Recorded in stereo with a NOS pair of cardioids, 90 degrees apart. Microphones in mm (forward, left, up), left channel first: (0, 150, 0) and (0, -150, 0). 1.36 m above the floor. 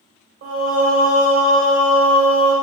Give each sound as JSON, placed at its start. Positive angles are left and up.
{"t": 0.4, "sound": "singing", "azimuth_deg": -55, "distance_m": 1.3}